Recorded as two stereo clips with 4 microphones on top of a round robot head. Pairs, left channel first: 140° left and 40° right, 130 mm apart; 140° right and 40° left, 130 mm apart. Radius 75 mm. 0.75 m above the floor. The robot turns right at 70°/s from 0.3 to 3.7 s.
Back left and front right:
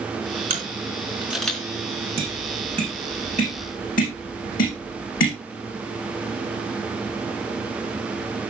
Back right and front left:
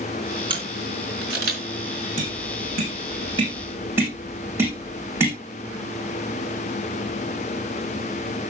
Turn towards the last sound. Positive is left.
turn(degrees=115)